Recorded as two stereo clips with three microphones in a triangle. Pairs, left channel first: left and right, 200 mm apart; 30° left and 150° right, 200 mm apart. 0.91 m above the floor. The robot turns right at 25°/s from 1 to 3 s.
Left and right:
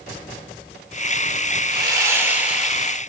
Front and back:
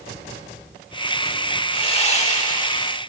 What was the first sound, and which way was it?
Sawing, 30° right.